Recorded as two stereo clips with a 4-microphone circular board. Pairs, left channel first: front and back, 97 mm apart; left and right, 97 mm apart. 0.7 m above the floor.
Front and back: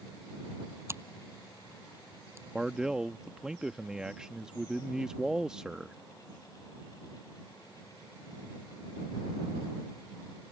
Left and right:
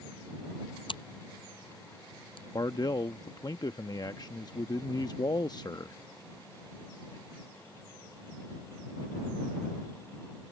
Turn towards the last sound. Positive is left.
turn(degrees=100)